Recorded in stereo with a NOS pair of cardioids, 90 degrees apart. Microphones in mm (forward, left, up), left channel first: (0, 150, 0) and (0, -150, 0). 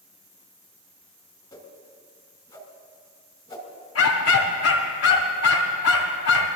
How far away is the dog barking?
About 2.5 m.